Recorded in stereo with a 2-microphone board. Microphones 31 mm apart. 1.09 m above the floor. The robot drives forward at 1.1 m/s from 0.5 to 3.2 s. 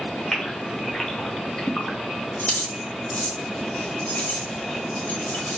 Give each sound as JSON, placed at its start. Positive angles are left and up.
{"t": 0.3, "sound": "a gasp", "side_deg": 10, "distance_m": 1.4}
{"t": 2.4, "sound": "keys jangling", "side_deg": 60, "distance_m": 0.9}